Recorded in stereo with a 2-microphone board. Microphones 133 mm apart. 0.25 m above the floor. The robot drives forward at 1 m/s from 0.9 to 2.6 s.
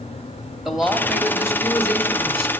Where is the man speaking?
Centre (ahead or behind), 0.9 m.